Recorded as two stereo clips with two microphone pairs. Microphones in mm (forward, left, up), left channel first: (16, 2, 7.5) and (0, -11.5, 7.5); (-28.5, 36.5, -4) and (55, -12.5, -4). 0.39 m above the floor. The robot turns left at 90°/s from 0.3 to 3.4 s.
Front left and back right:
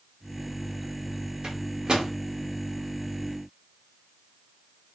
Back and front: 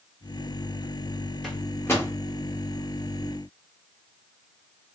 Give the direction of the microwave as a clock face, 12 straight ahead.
4 o'clock.